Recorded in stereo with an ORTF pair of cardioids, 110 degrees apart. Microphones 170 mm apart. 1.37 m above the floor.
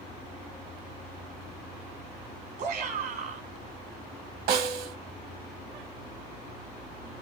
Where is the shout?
65° right, 1.6 m.